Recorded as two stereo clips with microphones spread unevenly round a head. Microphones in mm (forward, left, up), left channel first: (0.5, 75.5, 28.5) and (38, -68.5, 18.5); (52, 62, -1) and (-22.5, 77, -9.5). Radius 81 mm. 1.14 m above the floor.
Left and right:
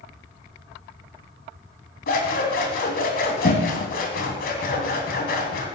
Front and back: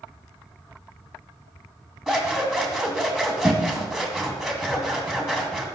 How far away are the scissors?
About 2.5 m.